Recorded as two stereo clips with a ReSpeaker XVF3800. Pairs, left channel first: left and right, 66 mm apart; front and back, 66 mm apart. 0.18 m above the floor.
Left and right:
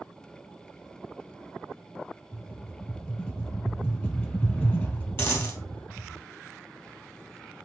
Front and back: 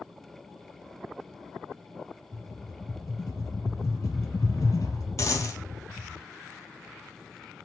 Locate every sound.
2.3 s a rattle: 30° left, 1.7 m
5.2 s a dropped coin: 45° left, 2.5 m